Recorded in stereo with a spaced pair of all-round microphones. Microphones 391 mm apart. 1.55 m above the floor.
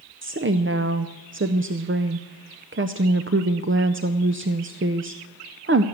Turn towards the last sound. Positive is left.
turn(degrees=-30)  # may be behind; listen again after turning